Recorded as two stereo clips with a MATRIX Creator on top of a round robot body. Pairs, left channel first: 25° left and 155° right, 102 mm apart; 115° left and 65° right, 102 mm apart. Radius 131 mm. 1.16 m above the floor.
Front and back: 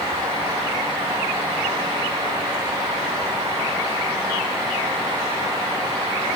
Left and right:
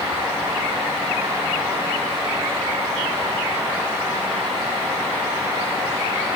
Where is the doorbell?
I don't hear a doorbell.